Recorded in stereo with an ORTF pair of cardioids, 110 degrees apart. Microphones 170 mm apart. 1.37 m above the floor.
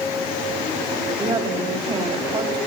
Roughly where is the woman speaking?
Ahead right.